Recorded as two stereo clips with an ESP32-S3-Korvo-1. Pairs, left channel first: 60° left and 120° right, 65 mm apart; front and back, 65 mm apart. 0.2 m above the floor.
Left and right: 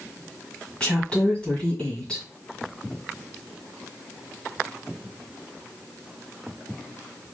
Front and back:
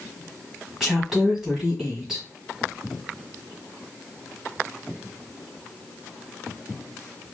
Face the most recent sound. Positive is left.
turn(degrees=105)